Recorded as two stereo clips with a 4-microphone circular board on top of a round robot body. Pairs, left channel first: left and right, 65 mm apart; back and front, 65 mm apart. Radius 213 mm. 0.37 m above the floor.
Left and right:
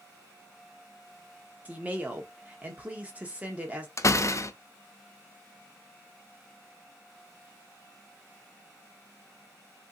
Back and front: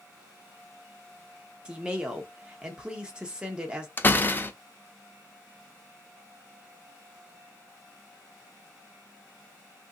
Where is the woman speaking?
55° right, 1.2 m.